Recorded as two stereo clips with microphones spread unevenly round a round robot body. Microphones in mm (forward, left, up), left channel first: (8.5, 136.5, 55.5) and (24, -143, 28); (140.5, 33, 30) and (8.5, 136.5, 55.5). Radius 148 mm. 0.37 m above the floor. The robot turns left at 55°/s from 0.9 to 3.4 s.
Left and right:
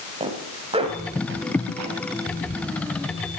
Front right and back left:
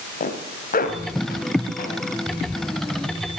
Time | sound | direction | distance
0.2 | a zipper | 20° right | 2 m